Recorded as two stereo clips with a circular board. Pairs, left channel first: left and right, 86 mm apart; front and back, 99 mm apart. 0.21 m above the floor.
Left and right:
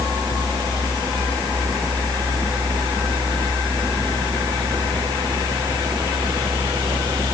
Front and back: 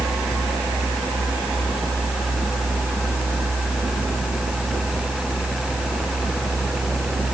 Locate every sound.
Only background noise.